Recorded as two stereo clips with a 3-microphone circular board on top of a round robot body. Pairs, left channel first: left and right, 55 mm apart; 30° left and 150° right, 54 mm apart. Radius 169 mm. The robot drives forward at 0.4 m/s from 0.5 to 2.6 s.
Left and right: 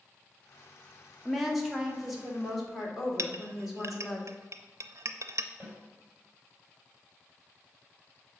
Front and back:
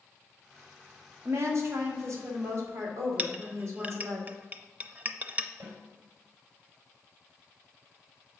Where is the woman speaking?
175° right, 1.7 m; by 4.2 s straight behind, 2 m.